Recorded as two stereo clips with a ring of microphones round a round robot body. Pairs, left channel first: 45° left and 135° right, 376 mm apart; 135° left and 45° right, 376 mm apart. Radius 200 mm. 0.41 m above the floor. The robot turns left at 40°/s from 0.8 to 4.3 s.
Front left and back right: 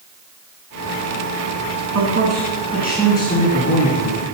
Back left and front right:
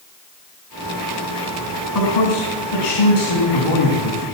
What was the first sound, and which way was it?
A man speaking, 175° left.